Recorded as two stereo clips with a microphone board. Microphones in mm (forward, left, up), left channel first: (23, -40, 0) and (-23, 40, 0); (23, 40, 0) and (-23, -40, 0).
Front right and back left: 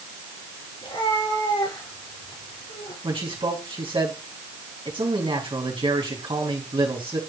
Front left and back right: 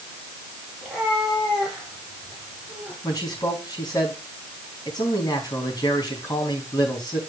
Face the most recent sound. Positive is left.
turn(degrees=105)